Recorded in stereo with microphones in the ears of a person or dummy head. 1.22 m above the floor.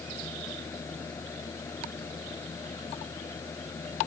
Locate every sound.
0.0 s a fan: 10° left (ahead or behind)